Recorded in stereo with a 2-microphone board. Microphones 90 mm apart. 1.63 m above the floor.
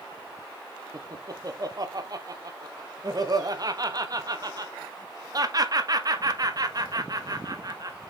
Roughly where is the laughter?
Right.